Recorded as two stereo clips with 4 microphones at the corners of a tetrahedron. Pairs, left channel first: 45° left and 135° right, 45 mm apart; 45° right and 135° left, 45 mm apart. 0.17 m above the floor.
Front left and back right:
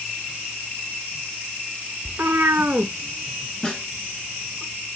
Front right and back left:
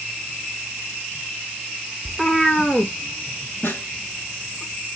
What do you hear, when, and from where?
2.0 s a cat meowing: 155° right, 0.6 m; by 4.6 s 50° right, 1.6 m
3.6 s a snare drum: 30° right, 1.3 m